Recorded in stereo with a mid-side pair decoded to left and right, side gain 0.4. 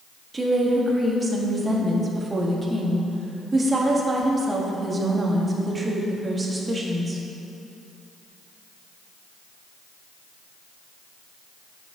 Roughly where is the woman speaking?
Ahead right.